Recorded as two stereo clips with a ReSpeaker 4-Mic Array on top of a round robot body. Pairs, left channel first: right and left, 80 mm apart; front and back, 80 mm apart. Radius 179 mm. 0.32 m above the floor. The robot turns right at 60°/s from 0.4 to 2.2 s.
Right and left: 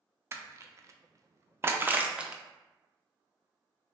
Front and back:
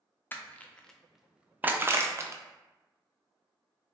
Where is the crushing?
50° left, 0.5 m; by 2.4 s 160° left, 0.5 m.